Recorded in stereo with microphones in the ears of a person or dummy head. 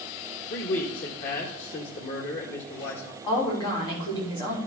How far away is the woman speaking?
About 4 m.